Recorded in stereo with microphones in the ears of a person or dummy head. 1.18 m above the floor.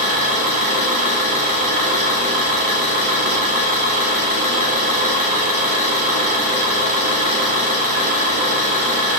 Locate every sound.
0.0 s an engine running: 45° right (ahead or behind), 1.0 m